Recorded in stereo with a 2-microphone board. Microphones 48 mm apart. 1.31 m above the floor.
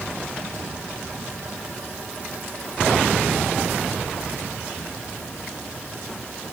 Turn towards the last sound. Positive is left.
No sound to turn to.